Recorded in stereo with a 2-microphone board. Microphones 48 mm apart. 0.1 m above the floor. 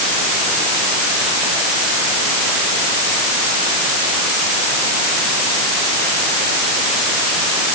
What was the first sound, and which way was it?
Only background noise.